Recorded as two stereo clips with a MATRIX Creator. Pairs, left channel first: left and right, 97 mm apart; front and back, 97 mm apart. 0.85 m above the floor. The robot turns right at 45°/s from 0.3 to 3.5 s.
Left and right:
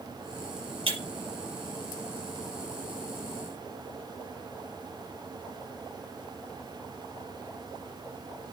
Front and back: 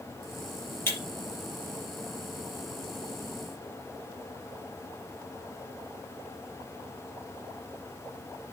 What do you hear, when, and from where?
0.9 s breaking glass: 65° right, 4.5 m; by 1.0 s 60° right, 4.5 m